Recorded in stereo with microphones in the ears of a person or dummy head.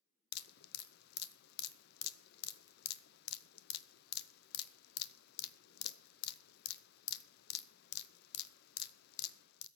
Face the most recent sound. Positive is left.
turn(degrees=60)  # may be behind; listen again after turning